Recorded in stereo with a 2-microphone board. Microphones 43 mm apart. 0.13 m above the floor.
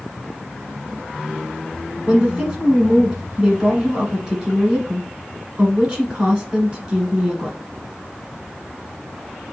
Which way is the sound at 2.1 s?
20° right (ahead or behind).